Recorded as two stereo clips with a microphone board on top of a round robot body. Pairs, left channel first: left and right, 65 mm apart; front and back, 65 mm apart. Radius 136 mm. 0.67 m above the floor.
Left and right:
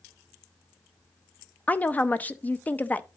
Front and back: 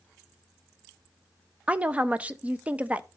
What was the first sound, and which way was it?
A woman speaking, 130° left.